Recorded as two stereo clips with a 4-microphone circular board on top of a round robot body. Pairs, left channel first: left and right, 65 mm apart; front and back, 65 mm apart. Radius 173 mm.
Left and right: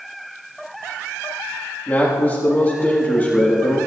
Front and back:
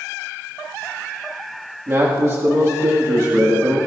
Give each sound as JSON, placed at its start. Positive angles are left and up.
{"t": 1.9, "sound": "a man speaking", "azimuth_deg": 145, "distance_m": 1.9}